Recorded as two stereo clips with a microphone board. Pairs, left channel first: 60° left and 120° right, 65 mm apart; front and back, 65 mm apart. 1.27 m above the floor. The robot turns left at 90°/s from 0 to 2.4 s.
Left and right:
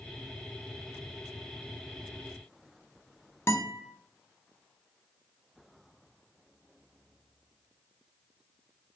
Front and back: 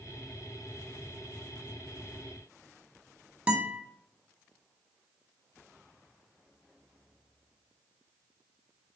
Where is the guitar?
110° left, 0.8 m.